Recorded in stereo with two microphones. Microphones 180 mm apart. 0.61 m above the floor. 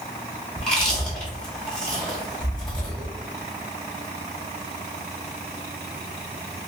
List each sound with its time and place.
0.6 s chewing: 5° left (ahead or behind), 1.1 m